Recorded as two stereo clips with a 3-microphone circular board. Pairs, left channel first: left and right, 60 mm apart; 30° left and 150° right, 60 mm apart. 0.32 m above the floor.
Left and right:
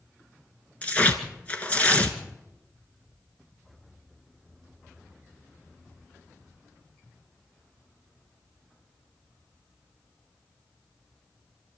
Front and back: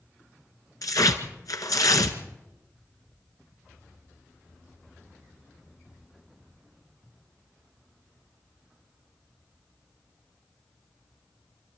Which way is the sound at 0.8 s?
25° left.